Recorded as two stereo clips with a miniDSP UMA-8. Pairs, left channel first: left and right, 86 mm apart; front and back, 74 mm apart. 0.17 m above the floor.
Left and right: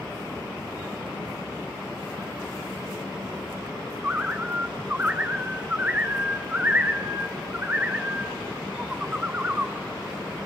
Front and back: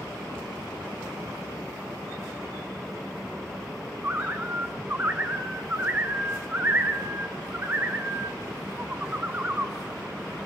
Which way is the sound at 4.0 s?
140° right.